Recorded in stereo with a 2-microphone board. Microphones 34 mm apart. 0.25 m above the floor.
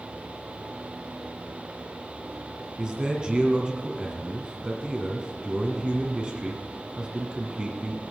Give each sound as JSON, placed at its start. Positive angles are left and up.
{"t": 2.8, "sound": "a man speaking", "side_deg": -25, "distance_m": 2.0}